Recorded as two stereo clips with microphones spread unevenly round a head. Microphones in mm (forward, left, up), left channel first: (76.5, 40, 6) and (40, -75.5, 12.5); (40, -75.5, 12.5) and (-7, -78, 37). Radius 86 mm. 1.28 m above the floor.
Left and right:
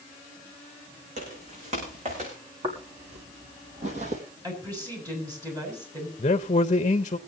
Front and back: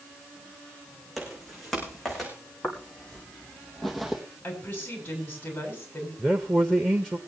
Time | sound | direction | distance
1.2 | footsteps | 90° right | 6.5 m
2.6 | footsteps | 75° right | 2.5 m
4.4 | a woman speaking | 50° right | 7.5 m
6.2 | a man speaking | 95° left | 0.6 m